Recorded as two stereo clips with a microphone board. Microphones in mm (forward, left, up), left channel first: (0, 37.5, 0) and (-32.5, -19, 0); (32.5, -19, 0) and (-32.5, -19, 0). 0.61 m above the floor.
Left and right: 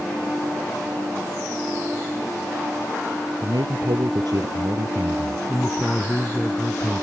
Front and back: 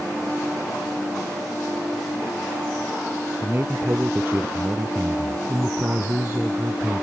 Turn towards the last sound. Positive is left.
turn(degrees=125)